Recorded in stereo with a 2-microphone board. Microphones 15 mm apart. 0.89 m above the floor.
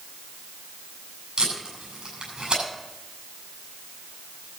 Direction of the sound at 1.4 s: 70° right (ahead or behind).